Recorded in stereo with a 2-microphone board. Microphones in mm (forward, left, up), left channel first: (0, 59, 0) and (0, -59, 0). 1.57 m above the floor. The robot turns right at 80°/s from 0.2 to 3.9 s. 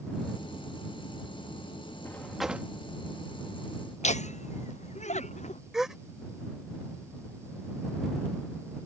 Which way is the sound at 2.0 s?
155° left.